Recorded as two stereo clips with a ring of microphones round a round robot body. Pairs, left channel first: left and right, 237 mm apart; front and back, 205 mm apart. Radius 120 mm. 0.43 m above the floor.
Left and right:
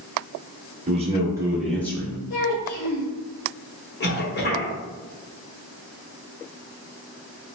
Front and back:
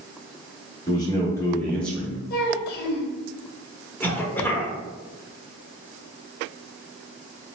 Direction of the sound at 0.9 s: 55° right.